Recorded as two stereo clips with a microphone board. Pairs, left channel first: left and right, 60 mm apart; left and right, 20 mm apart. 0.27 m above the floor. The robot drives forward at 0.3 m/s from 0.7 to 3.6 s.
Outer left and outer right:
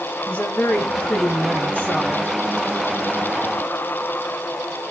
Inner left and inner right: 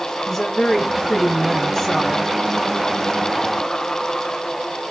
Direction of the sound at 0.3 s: 20° left (ahead or behind).